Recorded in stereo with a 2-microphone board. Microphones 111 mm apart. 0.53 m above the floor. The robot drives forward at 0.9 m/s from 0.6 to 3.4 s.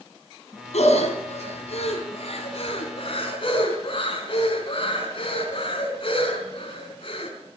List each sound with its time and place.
0.7 s breathing: 80° left, 3.5 m; by 7.3 s 50° left (ahead or behind), 4.5 m